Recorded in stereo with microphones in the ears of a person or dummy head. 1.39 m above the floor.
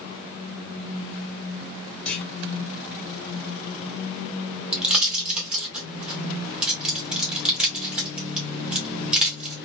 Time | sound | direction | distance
2.0 | a clunk | 5° left (ahead or behind) | 2 m
4.7 | a pop | centre (ahead or behind) | 1.6 m